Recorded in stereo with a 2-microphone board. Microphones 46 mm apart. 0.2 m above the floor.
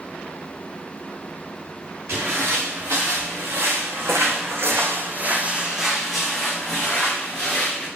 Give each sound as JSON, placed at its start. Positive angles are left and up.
{"t": 2.1, "sound": "footsteps", "side_deg": -65, "distance_m": 1.8}